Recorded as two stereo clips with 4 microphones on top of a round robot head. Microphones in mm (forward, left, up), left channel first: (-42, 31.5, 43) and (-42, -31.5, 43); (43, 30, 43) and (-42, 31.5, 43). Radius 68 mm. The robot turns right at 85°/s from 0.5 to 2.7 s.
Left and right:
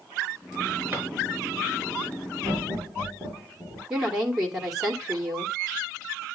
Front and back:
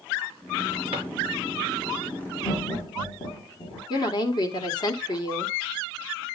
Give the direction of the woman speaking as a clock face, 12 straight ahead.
12 o'clock.